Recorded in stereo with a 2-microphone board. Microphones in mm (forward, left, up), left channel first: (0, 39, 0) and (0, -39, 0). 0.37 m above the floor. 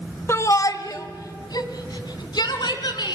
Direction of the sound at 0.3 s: 40° left (ahead or behind).